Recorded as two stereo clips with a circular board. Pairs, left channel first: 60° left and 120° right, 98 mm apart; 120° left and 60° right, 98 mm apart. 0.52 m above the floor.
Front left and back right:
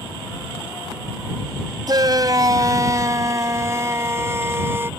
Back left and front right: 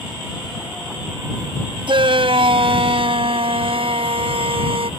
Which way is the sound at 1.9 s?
75° right.